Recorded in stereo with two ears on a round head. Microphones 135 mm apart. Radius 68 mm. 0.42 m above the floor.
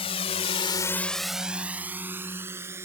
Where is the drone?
40° left (ahead or behind); by 2.9 s 20° right (ahead or behind).